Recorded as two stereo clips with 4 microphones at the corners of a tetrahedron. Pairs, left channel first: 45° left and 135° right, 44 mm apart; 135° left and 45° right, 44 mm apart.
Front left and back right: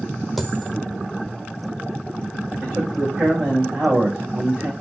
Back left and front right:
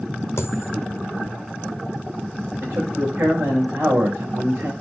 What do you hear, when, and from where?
0.4 s a dropped coin: 135° left, 1.3 m
2.6 s a man speaking: 75° right, 7 m